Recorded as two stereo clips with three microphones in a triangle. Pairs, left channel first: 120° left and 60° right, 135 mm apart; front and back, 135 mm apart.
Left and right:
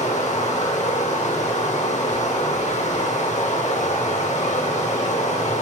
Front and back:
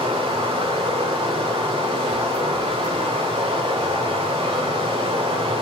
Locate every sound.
0.0 s running water: 140° left, 1.1 m